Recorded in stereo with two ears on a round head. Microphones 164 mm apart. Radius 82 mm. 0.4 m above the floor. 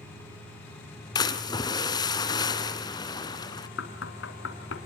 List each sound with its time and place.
1.1 s a splash: 25° left (ahead or behind), 2 m
3.8 s knocking: 80° left, 3.5 m